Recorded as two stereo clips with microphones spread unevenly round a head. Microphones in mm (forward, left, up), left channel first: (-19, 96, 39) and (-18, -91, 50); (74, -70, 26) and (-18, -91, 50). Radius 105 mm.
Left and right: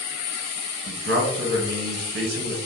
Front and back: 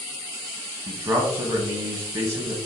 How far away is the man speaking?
About 0.9 m.